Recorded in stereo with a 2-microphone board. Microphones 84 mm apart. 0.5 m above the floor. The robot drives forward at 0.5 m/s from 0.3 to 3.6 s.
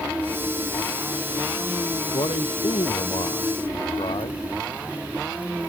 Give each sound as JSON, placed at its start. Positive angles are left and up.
{"t": 2.1, "sound": "a man speaking", "side_deg": 85}